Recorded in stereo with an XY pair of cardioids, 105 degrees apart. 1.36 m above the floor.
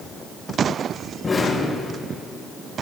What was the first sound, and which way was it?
An explosion, 25° left.